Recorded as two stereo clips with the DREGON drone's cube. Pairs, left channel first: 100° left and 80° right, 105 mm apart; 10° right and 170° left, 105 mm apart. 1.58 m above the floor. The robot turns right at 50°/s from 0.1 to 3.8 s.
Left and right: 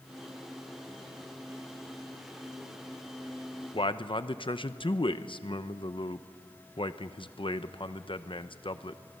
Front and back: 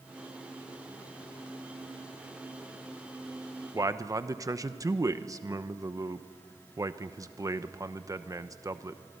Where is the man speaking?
120° left, 0.9 m.